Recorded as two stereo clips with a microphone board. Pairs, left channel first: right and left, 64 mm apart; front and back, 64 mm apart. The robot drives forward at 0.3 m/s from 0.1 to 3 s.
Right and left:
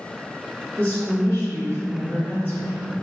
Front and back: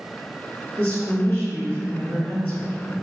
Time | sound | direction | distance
0.8 | a woman speaking | 30° right | 1.7 m